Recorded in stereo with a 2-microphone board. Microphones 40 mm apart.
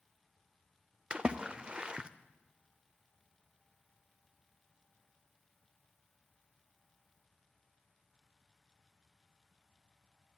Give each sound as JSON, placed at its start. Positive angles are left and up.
{"t": 1.1, "sound": "a splash", "side_deg": -25, "distance_m": 0.5}